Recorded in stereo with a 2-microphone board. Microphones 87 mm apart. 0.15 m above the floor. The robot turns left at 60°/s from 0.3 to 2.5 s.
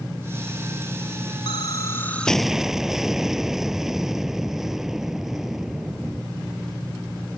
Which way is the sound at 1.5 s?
55° left.